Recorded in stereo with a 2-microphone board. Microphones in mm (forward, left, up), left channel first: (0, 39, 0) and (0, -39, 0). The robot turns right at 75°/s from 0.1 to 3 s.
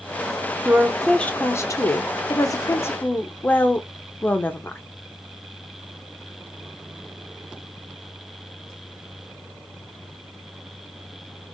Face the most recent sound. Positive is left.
turn(degrees=150)